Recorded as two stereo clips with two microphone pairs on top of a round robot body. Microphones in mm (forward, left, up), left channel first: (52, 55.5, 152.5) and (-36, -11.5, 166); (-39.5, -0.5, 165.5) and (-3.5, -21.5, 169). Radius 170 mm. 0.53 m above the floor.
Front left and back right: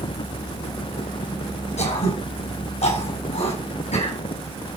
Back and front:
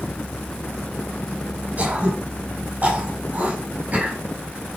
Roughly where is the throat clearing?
Ahead left.